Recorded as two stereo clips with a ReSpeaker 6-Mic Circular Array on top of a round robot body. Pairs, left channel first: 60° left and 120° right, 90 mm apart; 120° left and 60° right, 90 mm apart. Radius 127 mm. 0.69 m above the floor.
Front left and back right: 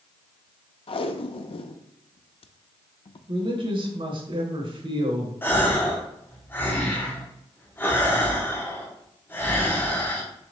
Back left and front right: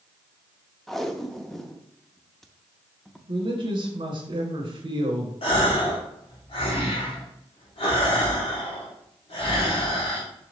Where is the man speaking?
90° right, 2.5 m.